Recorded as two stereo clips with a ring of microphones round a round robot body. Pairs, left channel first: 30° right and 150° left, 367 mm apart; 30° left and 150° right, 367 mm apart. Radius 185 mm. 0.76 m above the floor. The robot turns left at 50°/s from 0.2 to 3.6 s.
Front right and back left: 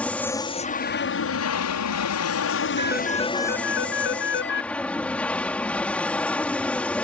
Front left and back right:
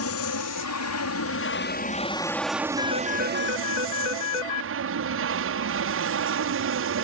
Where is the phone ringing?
75° left; by 4.7 s 30° left.